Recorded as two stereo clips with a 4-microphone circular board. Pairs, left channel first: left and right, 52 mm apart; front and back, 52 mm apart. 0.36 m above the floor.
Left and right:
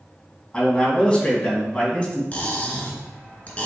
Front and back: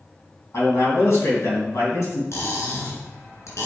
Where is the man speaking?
20° left, 2.5 m.